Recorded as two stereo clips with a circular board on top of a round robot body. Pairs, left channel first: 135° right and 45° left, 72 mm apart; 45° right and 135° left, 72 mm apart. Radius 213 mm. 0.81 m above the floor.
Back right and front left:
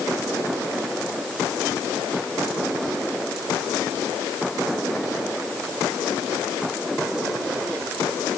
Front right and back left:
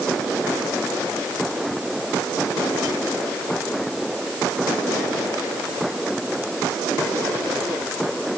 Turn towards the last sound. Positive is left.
No sound to turn to.